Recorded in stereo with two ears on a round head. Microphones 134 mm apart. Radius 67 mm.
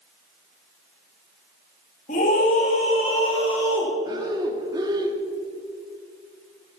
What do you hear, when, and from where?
2.1 s a scream: 50° left (ahead or behind), 3 m; by 3.9 s 40° left (ahead or behind), 4.5 m
4.0 s breathing: 25° right (ahead or behind), 1.2 m